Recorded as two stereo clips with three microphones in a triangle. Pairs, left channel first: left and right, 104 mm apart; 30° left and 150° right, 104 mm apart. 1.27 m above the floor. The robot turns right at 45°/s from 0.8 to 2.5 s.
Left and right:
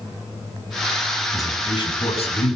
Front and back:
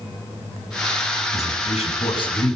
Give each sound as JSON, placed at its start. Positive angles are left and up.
{"t": 1.3, "sound": "a man speaking", "azimuth_deg": 25, "distance_m": 9.0}